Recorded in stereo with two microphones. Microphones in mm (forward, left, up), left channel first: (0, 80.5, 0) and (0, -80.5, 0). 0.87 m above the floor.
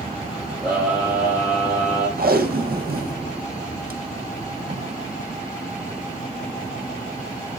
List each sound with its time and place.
0.6 s a scream: 5° right (ahead or behind), 5.5 m
2.2 s tape being pulled: 70° right (ahead or behind), 1.7 m